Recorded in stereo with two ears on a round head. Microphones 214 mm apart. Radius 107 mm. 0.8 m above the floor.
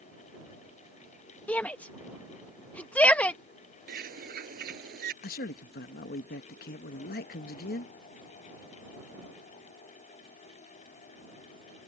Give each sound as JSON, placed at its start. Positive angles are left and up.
{"t": 1.5, "sound": "a shout", "side_deg": 5}
{"t": 3.9, "sound": "a bird", "side_deg": -40}
{"t": 5.2, "sound": "a man speaking", "side_deg": 40}